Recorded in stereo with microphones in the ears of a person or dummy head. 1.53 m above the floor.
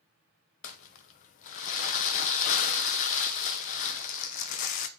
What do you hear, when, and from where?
0.6 s crumpling: 45° left (ahead or behind), 0.7 m